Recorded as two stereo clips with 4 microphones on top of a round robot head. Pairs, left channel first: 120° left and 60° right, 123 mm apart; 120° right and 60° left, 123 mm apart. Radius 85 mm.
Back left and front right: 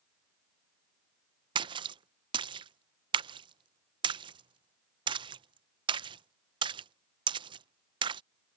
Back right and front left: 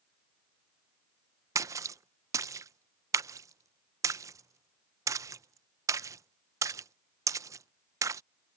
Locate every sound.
1.6 s a splash: 5° right